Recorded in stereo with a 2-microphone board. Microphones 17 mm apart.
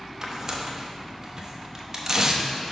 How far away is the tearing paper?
About 0.8 m.